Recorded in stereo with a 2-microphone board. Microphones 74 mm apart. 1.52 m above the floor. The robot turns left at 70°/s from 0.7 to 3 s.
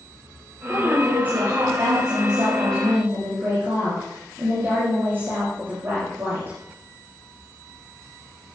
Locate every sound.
0.7 s a woman speaking: 10° left, 8 m; by 6.6 s 150° right, 8 m